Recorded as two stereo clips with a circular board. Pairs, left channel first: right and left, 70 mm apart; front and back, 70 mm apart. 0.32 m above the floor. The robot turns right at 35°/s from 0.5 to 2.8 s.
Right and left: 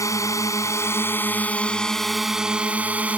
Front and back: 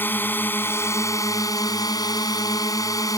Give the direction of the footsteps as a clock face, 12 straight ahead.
I don't hear footsteps.